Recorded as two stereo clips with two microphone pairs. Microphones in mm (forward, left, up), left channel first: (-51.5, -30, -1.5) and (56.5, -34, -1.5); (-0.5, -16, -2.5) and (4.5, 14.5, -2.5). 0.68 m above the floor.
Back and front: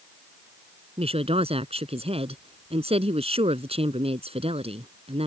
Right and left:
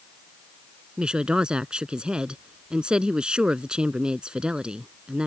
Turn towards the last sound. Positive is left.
turn(degrees=20)